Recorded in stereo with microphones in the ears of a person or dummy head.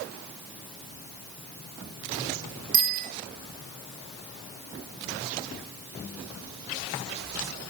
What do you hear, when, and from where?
2.7 s a bicycle bell: 55° right (ahead or behind), 4 m